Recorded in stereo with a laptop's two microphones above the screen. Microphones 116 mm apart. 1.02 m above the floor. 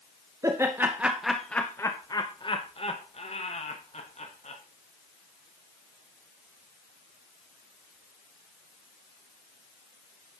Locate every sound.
0.4 s laughter: 25° right (ahead or behind), 0.9 m; by 4.6 s 70° left (ahead or behind), 1.7 m